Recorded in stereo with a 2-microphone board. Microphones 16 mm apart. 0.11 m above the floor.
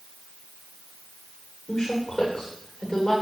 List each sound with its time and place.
1.7 s a woman speaking: 55° left (ahead or behind), 10 m